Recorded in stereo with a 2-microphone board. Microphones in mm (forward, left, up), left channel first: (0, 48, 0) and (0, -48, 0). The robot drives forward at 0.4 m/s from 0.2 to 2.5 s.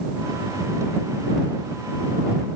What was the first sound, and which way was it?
Only background noise.